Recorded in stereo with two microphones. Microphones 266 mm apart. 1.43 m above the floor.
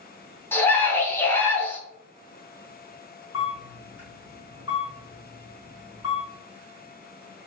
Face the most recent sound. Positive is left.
turn(degrees=60)  # may be behind; listen again after turning